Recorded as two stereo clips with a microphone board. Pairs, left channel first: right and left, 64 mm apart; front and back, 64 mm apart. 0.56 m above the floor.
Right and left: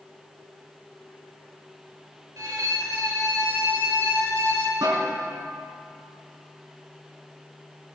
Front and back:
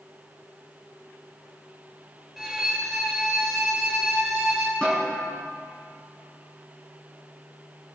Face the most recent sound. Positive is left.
turn(degrees=80)